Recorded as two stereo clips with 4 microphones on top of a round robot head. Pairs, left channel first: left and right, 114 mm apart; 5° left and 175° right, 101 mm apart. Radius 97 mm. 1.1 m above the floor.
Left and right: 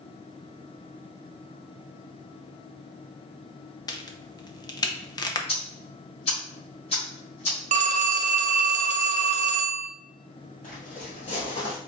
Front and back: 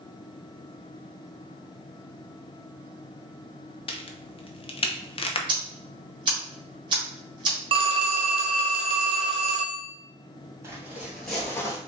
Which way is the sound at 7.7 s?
130° right.